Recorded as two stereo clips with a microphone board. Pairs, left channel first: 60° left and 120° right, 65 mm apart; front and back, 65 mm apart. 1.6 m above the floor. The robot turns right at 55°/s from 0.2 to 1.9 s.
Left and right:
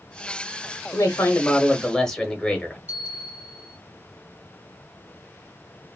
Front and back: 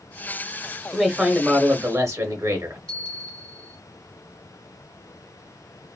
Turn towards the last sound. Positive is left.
turn(degrees=-70)